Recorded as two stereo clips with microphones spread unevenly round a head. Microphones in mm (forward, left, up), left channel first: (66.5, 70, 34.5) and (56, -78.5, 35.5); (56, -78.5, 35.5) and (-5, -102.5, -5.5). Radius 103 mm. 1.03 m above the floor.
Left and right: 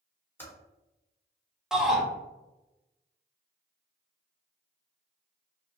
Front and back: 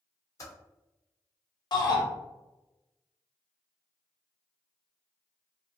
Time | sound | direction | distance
0.4 | typing on a keyboard | 10° left | 1.3 m
1.7 | a shout | 5° right | 1.3 m